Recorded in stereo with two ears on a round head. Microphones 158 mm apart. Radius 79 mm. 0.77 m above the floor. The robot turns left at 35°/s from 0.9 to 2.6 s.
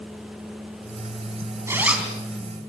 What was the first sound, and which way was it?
A zipper, 15° right (ahead or behind).